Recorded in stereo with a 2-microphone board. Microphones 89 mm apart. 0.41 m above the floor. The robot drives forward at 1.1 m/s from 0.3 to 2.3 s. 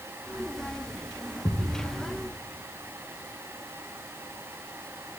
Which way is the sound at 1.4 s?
60° left (ahead or behind).